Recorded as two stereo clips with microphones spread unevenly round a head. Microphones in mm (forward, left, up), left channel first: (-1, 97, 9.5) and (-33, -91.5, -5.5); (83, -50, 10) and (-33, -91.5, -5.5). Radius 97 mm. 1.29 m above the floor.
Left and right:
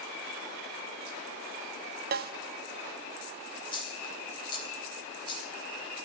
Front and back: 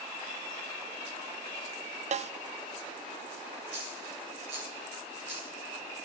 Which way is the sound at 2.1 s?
135° right.